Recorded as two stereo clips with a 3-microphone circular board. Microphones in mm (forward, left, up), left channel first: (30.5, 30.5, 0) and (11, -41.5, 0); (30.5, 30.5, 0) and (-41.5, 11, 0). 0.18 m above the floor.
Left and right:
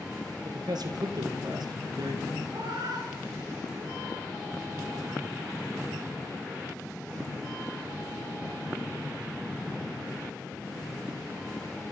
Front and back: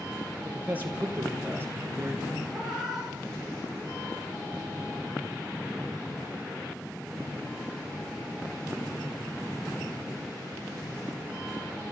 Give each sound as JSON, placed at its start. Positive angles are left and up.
{"t": 0.5, "sound": "a man speaking", "azimuth_deg": -100, "distance_m": 5.0}
{"t": 2.5, "sound": "a cat meowing", "azimuth_deg": -75, "distance_m": 9.5}